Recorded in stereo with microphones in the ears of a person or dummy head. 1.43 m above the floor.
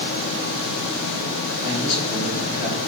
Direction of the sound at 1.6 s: 65° left (ahead or behind).